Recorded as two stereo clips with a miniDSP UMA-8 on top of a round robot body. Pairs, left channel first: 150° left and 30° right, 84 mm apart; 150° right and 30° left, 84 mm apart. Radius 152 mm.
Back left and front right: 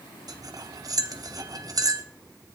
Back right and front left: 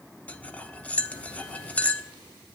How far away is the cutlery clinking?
About 1.0 m.